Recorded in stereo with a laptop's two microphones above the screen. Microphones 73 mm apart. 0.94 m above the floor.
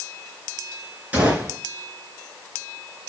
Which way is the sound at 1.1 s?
20° right (ahead or behind).